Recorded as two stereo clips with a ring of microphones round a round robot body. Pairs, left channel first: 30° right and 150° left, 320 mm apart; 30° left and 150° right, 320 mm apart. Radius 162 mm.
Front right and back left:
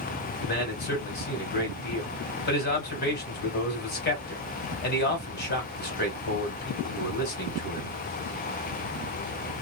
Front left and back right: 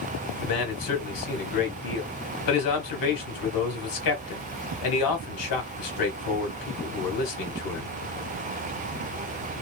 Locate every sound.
0.4 s a man speaking: 25° left, 1.8 m